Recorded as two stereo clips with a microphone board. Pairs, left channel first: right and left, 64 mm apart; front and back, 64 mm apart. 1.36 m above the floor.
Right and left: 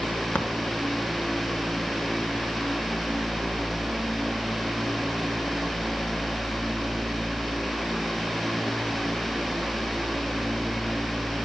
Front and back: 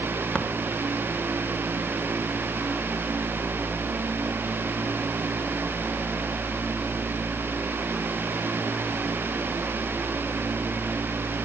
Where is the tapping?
50° right, 1.1 m.